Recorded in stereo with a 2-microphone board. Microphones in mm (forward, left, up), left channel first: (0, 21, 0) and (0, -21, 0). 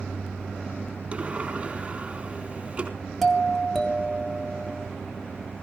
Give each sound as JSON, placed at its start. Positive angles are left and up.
{"t": 1.1, "sound": "a sliding door", "side_deg": -25, "distance_m": 3.5}
{"t": 3.2, "sound": "a doorbell", "side_deg": 5, "distance_m": 1.9}